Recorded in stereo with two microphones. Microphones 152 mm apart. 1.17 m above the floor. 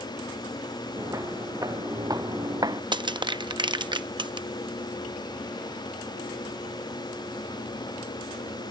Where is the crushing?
30° right (ahead or behind).